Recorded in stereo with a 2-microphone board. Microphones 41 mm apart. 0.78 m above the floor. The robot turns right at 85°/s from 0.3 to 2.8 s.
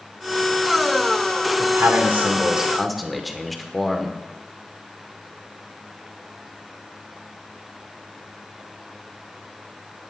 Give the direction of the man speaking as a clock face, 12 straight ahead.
3 o'clock.